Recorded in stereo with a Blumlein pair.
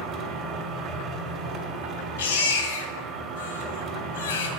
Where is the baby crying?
60° left, 1.2 m.